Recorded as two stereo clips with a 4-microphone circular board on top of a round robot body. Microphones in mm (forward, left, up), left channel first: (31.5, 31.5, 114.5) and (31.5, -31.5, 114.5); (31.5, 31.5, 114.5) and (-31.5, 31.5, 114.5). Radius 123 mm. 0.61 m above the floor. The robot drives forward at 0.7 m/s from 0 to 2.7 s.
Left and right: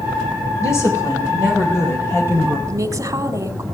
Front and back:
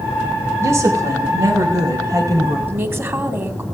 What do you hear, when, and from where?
0.6 s a woman speaking: 130° left, 4 m; by 2.6 s 145° left, 5 m
2.7 s a woman speaking: 125° right, 2 m